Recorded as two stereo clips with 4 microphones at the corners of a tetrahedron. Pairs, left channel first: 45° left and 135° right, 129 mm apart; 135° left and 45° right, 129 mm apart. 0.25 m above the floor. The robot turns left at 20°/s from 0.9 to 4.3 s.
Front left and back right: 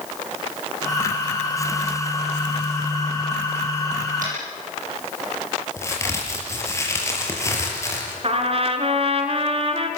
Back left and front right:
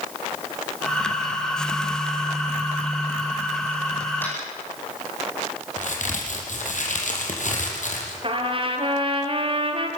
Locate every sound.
4.2 s tapping: 150° right, 10 m
5.8 s a crack: 115° left, 5 m
8.2 s a trumpet: 90° right, 2.5 m